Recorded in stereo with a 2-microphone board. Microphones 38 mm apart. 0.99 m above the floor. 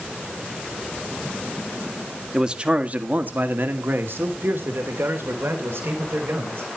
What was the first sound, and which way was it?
A man speaking, 15° right (ahead or behind).